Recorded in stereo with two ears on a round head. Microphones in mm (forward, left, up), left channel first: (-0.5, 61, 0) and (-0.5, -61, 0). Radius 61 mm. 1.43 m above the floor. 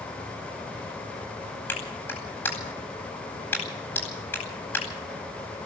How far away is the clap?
About 9.5 m.